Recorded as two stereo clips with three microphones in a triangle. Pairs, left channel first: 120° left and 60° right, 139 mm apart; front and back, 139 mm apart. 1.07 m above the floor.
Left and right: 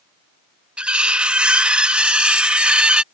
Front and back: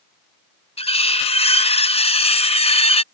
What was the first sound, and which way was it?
Cutlery clinking, 20° left.